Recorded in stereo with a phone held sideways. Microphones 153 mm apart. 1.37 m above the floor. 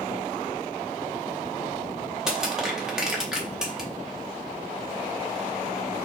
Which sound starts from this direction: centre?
Crushing, at 2.3 s.